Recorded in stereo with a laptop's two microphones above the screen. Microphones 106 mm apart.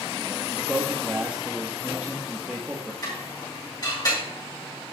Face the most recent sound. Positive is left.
turn(degrees=40)  # may be behind; listen again after turning